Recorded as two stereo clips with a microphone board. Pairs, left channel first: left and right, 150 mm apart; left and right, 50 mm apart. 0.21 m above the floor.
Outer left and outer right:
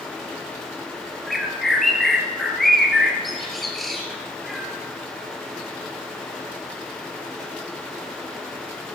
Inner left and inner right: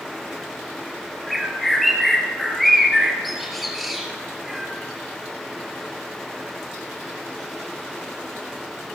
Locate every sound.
1.3 s a bird: centre (ahead or behind), 2.5 m